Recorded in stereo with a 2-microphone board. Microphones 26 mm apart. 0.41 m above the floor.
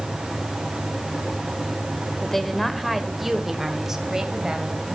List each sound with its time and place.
2.2 s a woman speaking: 15° left (ahead or behind), 1.6 m; by 5.0 s 25° right (ahead or behind), 2.5 m